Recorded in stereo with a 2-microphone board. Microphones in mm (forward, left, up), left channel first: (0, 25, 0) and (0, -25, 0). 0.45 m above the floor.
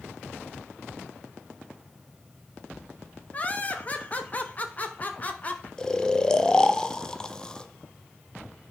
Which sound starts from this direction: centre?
Snoring, at 5.8 s.